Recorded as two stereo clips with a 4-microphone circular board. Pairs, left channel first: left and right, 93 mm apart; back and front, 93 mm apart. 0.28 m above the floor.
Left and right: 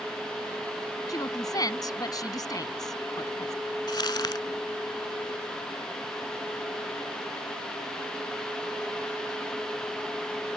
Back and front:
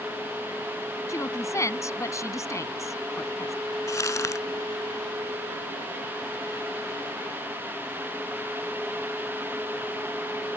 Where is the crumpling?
125° left.